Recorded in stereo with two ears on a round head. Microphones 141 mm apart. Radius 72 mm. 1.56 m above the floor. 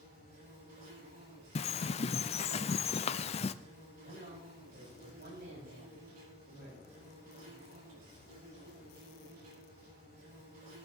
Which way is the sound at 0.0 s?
60° right (ahead or behind).